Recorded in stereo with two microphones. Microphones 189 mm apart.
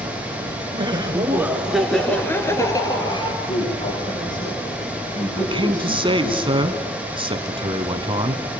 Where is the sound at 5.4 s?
25° right (ahead or behind), 1.4 m.